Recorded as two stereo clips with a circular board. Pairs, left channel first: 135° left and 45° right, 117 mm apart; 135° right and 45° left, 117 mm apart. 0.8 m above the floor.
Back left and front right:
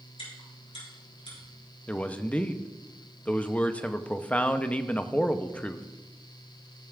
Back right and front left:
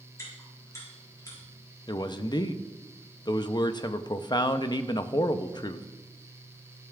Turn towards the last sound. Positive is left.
turn(degrees=-155)